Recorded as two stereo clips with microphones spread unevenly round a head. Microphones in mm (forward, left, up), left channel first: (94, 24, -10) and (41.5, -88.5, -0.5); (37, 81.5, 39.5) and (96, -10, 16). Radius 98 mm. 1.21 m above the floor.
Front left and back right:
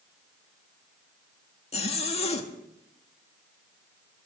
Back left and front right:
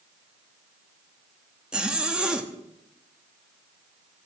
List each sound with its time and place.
1.7 s a zipper: 25° left, 1.6 m